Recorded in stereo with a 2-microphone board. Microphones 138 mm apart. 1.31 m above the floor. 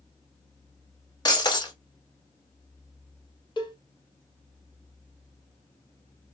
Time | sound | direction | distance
1.2 | breaking glass | 30° left (ahead or behind) | 0.7 m
3.6 | a cowbell | 30° left (ahead or behind) | 0.8 m